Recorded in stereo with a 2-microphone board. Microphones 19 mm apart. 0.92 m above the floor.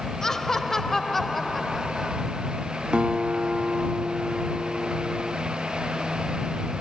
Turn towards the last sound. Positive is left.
turn(degrees=-80)